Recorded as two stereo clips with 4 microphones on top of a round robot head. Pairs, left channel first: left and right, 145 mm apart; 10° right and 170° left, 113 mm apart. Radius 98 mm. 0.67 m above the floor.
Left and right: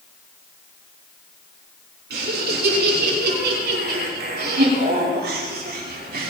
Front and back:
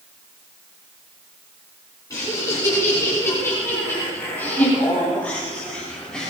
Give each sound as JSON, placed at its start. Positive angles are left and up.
{"t": 2.1, "sound": "laughter", "azimuth_deg": -80, "distance_m": 8.0}